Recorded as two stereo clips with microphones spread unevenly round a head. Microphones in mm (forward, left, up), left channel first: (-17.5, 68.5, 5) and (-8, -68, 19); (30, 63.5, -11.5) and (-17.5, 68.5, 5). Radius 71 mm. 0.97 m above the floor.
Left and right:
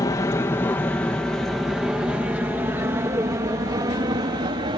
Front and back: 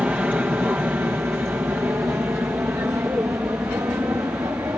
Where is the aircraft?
130° left; by 4.8 s 135° right.